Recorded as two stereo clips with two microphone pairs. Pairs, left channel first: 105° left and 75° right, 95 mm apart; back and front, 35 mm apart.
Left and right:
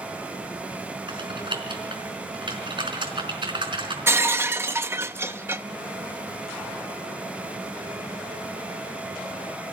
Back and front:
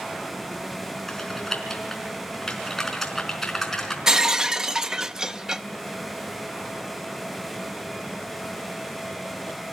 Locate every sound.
1.1 s typing on a keyboard: 100° right, 4 m
4.1 s breaking glass: 40° right, 0.6 m